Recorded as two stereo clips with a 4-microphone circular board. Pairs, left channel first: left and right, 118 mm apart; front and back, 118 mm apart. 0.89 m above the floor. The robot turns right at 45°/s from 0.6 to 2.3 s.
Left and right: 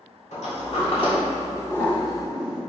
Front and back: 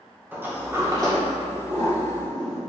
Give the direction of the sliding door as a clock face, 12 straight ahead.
8 o'clock.